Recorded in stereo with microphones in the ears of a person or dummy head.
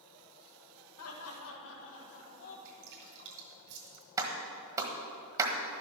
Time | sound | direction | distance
1.0 | laughter | 80° left | 1.6 m
2.6 | dripping | 65° right (ahead or behind) | 2.5 m
4.2 | a clap | 20° right (ahead or behind) | 1.4 m